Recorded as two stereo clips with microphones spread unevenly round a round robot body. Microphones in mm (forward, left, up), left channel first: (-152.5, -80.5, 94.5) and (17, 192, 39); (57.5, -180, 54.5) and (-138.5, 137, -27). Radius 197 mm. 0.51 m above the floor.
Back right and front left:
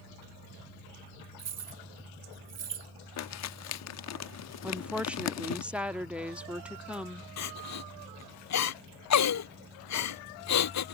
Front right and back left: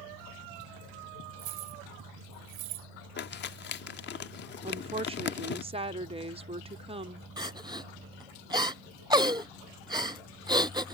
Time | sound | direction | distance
1.4 | keys jangling | 95° left | ?
3.2 | crumpling | 120° right | ?
4.6 | a woman speaking | 120° left | ?
7.4 | crying | 160° right | ?